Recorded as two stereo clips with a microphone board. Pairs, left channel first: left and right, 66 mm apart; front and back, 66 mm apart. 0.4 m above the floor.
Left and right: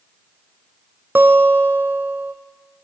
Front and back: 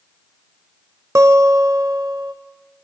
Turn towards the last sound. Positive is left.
turn(degrees=-140)